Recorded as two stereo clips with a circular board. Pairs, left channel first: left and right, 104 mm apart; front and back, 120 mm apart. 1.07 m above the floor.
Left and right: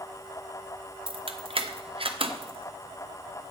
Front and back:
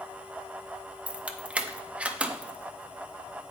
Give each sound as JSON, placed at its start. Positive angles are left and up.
{"t": 1.1, "sound": "keys jangling", "azimuth_deg": -100, "distance_m": 0.7}